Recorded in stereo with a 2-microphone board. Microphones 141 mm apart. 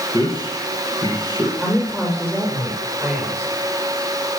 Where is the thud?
I don't hear a thud.